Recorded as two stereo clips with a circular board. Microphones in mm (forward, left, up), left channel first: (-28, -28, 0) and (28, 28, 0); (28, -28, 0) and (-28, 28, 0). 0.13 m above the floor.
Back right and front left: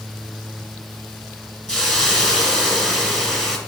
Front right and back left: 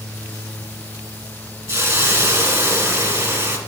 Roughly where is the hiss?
Behind left.